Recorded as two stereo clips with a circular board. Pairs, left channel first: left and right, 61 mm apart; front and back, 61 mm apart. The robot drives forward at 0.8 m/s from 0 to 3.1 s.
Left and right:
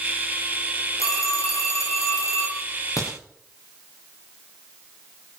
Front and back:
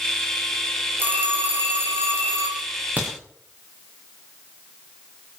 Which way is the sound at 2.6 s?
115° left.